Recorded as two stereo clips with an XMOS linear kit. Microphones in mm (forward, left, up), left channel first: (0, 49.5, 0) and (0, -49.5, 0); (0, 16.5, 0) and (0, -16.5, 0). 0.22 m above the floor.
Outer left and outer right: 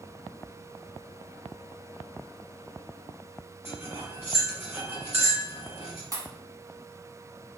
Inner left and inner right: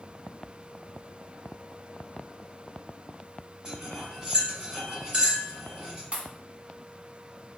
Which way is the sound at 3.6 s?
20° right (ahead or behind).